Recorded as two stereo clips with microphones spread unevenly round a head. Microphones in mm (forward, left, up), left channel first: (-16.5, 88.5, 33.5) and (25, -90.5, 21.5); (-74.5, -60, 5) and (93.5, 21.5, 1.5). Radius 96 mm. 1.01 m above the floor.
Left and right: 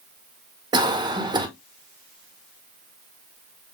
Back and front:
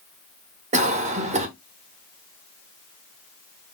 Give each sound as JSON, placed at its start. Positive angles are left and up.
{"t": 0.7, "sound": "a cough", "azimuth_deg": -20, "distance_m": 1.3}